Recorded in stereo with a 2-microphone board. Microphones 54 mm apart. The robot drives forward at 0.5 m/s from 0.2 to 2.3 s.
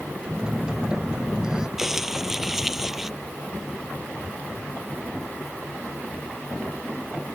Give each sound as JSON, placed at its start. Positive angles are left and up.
{"t": 0.3, "sound": "a phone buzzing", "side_deg": -10}
{"t": 1.8, "sound": "crumpling", "side_deg": -10}